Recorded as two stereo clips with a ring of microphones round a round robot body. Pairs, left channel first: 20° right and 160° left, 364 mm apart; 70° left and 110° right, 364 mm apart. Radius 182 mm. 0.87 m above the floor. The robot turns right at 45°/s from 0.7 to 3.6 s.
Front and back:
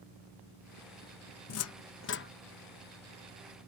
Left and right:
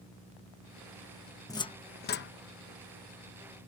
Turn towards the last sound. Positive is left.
turn(degrees=85)